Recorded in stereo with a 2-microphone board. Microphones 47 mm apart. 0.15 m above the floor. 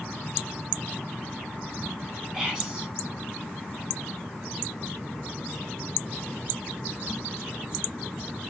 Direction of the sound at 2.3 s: 20° right (ahead or behind).